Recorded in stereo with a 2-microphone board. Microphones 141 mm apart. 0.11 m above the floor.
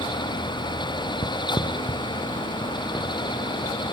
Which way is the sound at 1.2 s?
30° left (ahead or behind).